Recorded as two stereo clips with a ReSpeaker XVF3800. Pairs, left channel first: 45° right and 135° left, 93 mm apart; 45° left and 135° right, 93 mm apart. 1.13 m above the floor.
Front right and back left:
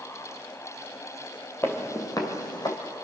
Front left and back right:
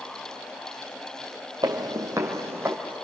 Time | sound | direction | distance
1.6 | footsteps | 105° right | 1.9 m